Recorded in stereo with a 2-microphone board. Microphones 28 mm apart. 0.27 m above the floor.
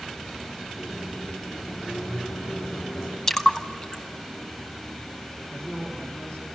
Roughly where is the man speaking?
Left.